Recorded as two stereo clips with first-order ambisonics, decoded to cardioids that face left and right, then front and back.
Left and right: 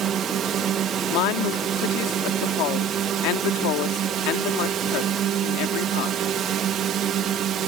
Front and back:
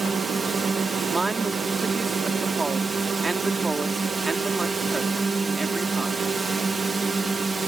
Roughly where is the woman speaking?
Left.